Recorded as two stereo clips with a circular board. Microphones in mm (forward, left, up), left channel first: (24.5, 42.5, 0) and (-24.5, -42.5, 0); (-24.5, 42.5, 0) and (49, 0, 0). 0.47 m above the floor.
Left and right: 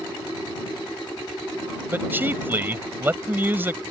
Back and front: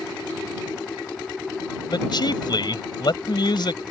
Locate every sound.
1.9 s a man speaking: 170° left